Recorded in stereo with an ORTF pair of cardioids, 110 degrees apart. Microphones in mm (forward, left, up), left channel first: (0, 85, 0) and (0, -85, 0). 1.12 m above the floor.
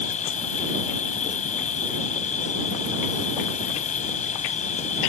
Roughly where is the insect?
Ahead left.